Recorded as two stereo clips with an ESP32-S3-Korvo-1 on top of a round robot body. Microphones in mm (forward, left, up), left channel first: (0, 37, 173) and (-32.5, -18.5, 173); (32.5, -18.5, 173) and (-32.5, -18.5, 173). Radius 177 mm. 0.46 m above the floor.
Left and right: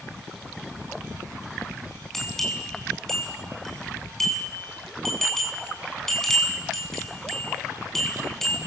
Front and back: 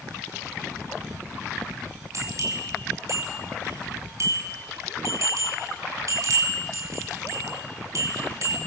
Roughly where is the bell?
Behind left.